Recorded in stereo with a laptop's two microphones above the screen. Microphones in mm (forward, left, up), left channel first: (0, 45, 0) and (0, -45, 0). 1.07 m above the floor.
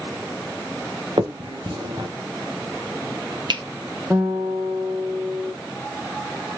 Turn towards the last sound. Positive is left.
turn(degrees=-15)  # may be behind; listen again after turning